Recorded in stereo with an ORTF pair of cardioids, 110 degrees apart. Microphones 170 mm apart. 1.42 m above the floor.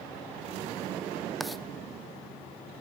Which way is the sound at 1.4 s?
Straight ahead.